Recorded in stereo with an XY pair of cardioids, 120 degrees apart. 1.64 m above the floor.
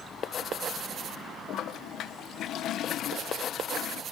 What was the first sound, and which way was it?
A toilet flushing, 65° left.